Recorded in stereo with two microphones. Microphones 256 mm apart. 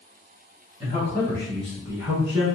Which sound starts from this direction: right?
A man speaking, at 0.8 s.